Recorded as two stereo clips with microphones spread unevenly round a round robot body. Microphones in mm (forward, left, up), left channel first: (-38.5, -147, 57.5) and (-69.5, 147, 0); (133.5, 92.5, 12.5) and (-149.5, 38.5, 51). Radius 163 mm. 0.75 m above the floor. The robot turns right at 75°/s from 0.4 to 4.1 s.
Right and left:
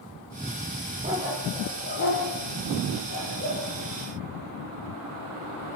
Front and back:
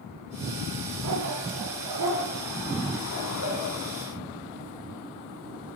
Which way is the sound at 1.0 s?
160° left.